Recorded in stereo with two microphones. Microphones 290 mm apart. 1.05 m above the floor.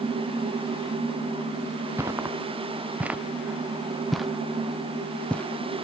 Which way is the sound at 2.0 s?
10° right (ahead or behind).